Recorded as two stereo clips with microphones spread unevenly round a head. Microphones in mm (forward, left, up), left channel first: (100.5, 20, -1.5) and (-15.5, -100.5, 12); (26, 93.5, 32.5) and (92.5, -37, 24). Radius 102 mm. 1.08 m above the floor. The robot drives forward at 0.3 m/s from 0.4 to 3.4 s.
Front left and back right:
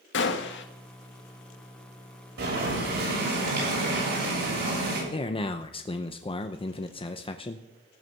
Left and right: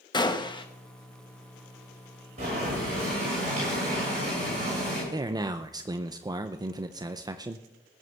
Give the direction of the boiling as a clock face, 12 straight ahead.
4 o'clock.